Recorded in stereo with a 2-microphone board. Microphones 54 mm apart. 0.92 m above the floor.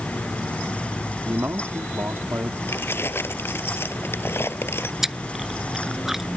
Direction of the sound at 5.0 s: 5° right (ahead or behind).